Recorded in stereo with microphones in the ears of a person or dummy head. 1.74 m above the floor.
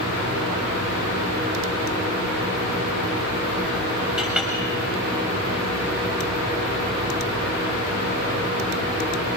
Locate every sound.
4.2 s a clink: 5° right (ahead or behind), 7 m